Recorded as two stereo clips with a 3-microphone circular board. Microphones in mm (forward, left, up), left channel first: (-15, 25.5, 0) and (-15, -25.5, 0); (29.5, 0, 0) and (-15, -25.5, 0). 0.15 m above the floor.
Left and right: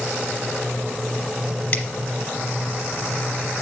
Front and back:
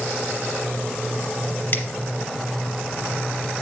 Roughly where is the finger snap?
Ahead left.